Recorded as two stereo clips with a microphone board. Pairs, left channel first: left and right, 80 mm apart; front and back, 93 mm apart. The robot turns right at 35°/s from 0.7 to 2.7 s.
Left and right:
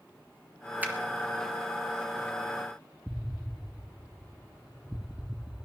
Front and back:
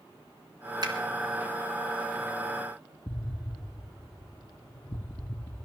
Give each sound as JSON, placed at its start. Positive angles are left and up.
{"t": 0.8, "sound": "a finger snap", "azimuth_deg": -155, "distance_m": 1.9}
{"t": 3.1, "sound": "an explosion", "azimuth_deg": -10, "distance_m": 0.6}